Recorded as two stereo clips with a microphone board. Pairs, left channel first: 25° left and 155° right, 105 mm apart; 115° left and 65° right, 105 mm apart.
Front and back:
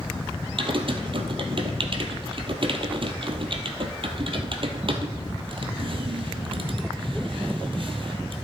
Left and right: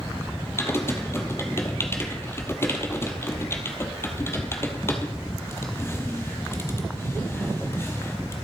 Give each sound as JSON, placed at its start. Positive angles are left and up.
{"t": 0.6, "sound": "typing on a keyboard", "azimuth_deg": 175, "distance_m": 1.8}